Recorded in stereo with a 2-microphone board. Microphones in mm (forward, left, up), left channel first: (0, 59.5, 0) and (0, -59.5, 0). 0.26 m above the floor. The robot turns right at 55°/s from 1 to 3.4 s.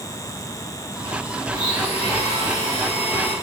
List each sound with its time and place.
1.5 s a blender: 35° left, 4 m; by 3.3 s 135° left, 4 m